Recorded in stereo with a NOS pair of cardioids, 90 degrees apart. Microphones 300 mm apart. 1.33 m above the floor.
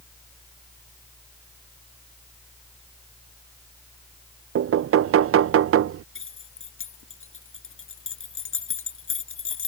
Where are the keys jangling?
45° left.